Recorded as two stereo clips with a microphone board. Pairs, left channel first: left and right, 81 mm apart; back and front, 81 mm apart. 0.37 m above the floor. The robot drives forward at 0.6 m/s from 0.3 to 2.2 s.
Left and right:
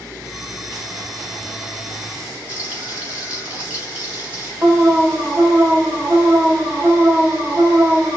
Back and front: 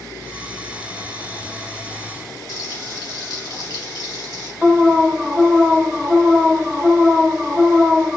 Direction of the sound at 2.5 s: 160° right.